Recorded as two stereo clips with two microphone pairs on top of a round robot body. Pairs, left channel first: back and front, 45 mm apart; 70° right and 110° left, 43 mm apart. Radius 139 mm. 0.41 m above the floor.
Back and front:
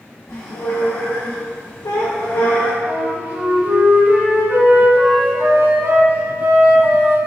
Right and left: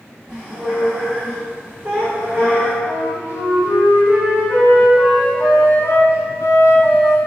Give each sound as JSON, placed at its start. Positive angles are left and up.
{"t": 0.3, "sound": "a squeak", "azimuth_deg": -170, "distance_m": 2.5}
{"t": 2.9, "sound": "a flute", "azimuth_deg": -50, "distance_m": 1.4}